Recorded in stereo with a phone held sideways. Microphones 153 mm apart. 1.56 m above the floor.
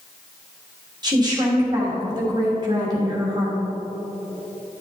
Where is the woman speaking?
25° right (ahead or behind), 3 m.